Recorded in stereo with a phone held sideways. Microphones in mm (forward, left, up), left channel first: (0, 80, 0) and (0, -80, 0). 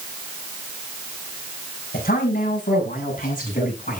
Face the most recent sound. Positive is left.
turn(degrees=55)  # may be behind; listen again after turning